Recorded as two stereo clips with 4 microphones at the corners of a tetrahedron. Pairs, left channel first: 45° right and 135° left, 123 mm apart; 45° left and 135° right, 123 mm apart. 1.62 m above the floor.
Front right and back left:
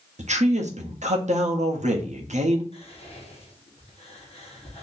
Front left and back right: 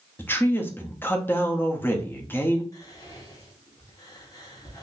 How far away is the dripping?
I don't hear dripping.